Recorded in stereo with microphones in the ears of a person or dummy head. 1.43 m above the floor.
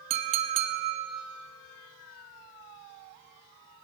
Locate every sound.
0.1 s a clink: 35° right (ahead or behind), 1.0 m